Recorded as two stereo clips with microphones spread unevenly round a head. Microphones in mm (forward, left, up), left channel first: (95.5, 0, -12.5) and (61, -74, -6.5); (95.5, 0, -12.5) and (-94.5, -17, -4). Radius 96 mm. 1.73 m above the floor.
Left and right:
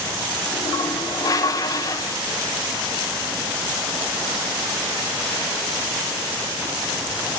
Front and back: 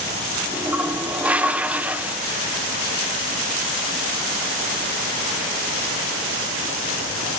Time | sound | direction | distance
0.5 | a toilet flushing | 105° left | 0.8 m